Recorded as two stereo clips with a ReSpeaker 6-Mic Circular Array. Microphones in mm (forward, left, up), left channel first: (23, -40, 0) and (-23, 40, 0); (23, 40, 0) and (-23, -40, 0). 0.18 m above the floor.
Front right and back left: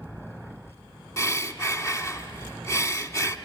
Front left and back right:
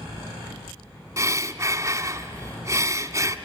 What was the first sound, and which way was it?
Breathing, 90° right.